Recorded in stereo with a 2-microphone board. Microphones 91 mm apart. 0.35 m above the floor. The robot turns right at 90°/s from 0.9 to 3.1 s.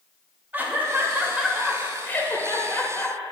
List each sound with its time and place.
0.5 s laughter: 20° right (ahead or behind), 0.9 m; by 3.2 s 15° left (ahead or behind), 0.9 m